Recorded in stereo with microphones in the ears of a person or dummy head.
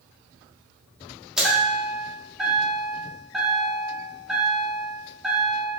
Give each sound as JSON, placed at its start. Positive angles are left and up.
{"t": 1.4, "sound": "a chime", "side_deg": -5, "distance_m": 1.4}